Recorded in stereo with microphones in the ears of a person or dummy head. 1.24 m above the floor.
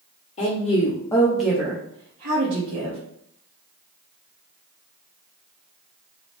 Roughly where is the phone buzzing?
I don't hear a phone buzzing.